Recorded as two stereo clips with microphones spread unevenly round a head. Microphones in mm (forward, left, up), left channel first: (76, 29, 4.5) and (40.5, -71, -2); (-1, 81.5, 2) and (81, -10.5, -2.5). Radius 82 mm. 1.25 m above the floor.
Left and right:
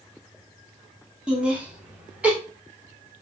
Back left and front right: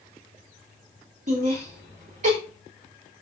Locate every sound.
1.3 s laughter: 30° right, 3 m; by 2.4 s 35° right, 4 m